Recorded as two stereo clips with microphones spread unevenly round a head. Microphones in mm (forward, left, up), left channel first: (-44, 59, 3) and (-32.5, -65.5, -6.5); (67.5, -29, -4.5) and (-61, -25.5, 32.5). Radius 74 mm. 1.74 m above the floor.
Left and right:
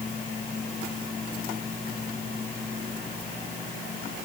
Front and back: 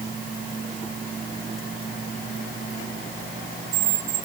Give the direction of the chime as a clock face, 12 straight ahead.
No chime in this recording.